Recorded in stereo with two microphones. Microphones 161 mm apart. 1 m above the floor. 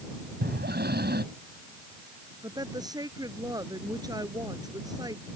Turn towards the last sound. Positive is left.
turn(degrees=-25)  # may be behind; listen again after turning